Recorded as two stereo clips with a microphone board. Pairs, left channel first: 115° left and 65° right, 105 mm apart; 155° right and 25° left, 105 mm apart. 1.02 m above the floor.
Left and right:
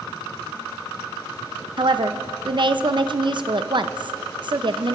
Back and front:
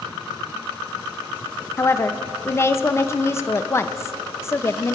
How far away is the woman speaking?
About 0.6 m.